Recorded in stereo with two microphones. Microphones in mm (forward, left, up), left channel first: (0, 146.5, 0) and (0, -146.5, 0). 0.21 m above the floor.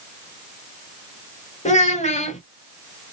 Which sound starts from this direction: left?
A child speaking, at 1.6 s.